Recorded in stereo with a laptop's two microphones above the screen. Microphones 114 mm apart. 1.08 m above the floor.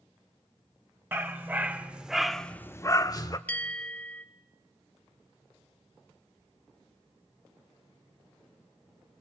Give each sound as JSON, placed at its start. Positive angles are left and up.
{"t": 1.1, "sound": "a dog barking", "side_deg": -20, "distance_m": 1.7}
{"t": 3.5, "sound": "a bell", "side_deg": 15, "distance_m": 0.9}